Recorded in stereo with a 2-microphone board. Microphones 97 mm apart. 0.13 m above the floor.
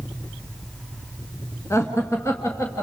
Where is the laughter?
30° left (ahead or behind), 1.6 m.